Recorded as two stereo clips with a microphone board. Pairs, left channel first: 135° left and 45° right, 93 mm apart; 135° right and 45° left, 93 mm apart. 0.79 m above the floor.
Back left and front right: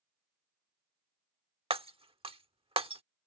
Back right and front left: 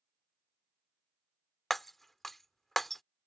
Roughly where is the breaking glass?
Ahead right.